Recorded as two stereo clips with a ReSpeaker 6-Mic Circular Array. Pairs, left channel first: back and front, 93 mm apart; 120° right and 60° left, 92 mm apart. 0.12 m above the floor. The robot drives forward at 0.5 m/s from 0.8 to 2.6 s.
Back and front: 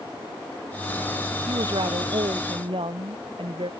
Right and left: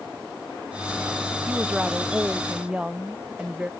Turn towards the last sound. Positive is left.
turn(degrees=-20)